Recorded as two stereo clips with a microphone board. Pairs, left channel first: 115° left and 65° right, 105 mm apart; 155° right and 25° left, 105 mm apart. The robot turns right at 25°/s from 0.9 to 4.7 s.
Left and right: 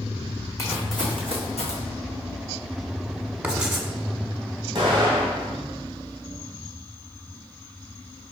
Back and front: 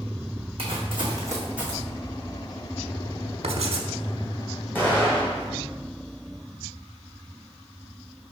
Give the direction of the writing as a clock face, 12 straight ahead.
12 o'clock.